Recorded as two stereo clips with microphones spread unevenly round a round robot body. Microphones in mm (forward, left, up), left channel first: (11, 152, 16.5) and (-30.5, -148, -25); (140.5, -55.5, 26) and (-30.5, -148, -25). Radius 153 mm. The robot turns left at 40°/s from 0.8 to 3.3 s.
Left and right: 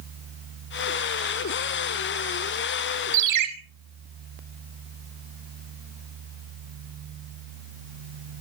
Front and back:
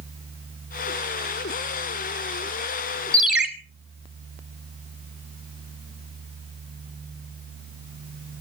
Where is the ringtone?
60° right, 1.9 m; by 3.5 s 70° right, 1.9 m.